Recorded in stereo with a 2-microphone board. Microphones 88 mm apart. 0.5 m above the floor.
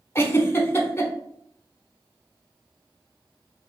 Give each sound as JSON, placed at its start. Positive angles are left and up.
{"t": 0.1, "sound": "a giggle", "side_deg": 25, "distance_m": 0.8}